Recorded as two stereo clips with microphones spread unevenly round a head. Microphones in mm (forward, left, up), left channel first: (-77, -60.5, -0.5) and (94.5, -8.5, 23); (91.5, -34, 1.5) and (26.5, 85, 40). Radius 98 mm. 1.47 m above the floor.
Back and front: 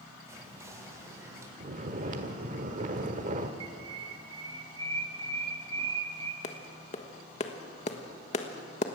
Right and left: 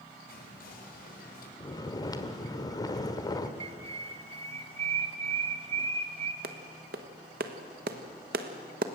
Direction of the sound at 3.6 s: 80° left.